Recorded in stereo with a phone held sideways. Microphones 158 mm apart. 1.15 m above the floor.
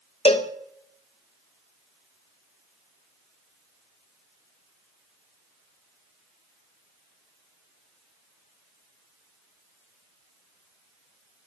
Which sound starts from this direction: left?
A cowbell, at 0.2 s.